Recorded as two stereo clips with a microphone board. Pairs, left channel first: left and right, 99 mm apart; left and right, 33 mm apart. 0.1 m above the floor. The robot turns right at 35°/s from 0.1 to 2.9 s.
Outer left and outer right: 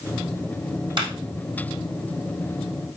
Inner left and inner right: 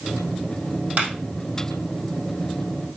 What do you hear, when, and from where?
1.0 s a clap: 50° right (ahead or behind), 3.5 m; by 1.1 s 55° right (ahead or behind), 3.5 m